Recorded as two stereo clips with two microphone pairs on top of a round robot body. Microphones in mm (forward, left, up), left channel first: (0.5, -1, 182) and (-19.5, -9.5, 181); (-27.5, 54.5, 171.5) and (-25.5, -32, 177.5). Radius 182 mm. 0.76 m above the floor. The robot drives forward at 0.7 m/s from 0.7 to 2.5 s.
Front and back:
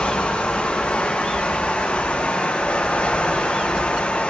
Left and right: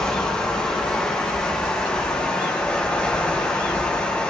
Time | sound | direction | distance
0.0 | running water | 10° left | 5.5 m